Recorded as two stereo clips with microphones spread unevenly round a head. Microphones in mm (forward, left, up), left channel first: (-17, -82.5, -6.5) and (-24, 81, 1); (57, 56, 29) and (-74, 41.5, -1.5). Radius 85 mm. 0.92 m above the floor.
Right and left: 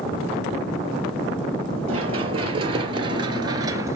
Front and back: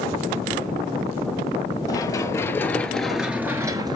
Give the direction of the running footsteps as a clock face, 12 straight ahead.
11 o'clock.